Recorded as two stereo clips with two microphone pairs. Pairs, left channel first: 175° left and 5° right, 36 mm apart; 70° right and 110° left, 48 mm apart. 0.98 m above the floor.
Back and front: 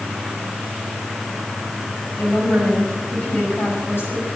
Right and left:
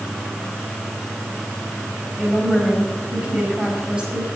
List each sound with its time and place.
2.2 s a woman speaking: straight behind, 7 m